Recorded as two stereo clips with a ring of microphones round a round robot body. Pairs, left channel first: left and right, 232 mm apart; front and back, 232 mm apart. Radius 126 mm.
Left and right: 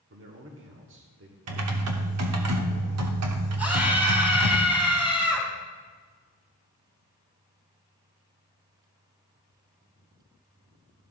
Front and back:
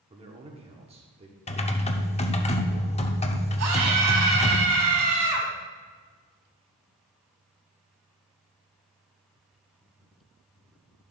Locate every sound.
0.1 s a man speaking: 120° right, 1.2 m
1.5 s typing on a keyboard: 65° right, 0.9 m
3.6 s a scream: 175° right, 3.5 m